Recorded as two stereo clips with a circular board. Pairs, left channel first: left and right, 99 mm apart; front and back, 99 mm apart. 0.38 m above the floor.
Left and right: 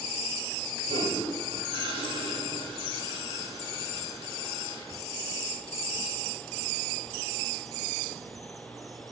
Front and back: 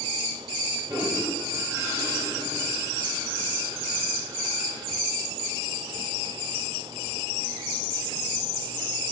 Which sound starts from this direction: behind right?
A toilet flushing, at 0.9 s.